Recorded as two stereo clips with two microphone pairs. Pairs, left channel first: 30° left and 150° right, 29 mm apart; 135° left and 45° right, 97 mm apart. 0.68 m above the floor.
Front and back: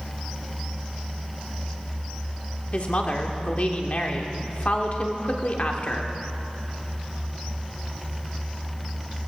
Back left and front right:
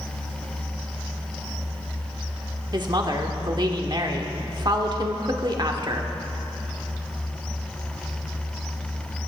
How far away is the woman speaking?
About 1.5 m.